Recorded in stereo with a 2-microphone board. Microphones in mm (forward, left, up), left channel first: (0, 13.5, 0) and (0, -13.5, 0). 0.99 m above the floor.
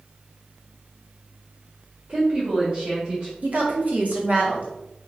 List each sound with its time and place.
2.1 s a woman speaking: 50° right (ahead or behind), 1.9 m; by 3.3 s 45° right (ahead or behind), 1.3 m
3.4 s a woman speaking: 55° right (ahead or behind), 1.1 m